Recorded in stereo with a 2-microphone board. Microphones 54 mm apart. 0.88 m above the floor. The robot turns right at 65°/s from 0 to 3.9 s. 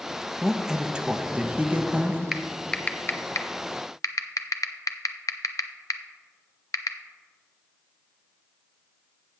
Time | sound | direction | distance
0.4 | a man speaking | centre (ahead or behind) | 0.6 m
2.3 | typing on a keyboard | 10° right (ahead or behind) | 0.5 m